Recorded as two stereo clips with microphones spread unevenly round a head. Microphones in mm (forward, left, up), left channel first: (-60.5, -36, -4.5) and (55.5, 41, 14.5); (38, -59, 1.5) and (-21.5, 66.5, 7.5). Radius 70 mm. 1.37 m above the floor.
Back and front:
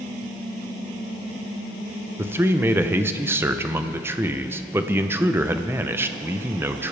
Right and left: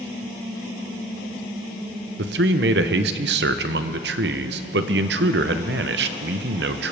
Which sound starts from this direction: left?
A man speaking, at 2.2 s.